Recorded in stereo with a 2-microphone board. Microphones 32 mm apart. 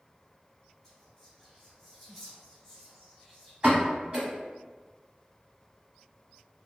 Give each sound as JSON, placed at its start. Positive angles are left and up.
{"t": 0.8, "sound": "whispering", "side_deg": 10, "distance_m": 1.7}
{"t": 3.6, "sound": "a pop", "side_deg": -30, "distance_m": 1.2}